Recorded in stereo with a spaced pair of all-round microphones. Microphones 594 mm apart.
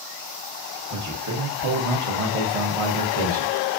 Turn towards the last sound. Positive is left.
turn(degrees=-65)  # may be behind; listen again after turning